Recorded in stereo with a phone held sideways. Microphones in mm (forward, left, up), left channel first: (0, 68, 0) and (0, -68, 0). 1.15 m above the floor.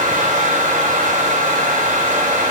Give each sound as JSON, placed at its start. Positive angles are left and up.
{"t": 0.0, "sound": "a fan", "side_deg": -80, "distance_m": 3.5}